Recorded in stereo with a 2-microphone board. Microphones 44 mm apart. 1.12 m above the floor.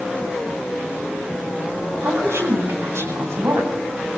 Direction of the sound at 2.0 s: 75° right (ahead or behind).